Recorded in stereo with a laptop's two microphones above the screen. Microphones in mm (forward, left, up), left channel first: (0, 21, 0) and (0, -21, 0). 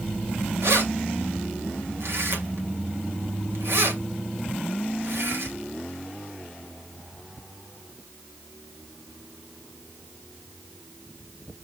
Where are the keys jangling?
75° right (ahead or behind), 2.5 m.